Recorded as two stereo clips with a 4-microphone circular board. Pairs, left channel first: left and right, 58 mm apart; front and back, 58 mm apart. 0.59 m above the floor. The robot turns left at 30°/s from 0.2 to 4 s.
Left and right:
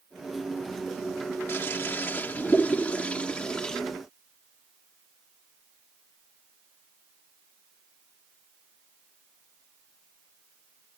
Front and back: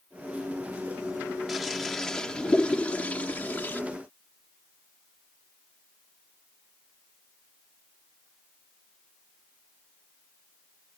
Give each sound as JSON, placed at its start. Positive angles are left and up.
{"t": 1.5, "sound": "a toilet flushing", "azimuth_deg": 90}